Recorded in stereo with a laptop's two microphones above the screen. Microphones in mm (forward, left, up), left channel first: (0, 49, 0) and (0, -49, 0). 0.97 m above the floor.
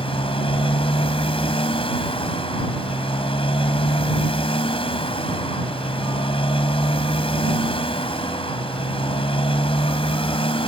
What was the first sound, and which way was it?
A motorcycle, 75° left (ahead or behind).